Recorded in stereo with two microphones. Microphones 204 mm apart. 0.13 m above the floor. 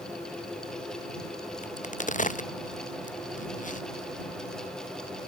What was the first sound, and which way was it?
A crack, 35° left (ahead or behind).